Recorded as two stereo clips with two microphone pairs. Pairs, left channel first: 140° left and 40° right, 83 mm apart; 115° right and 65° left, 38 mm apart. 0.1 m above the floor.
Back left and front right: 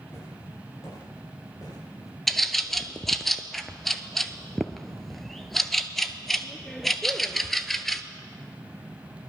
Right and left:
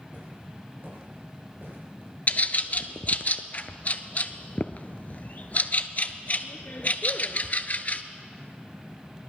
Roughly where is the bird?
Behind right.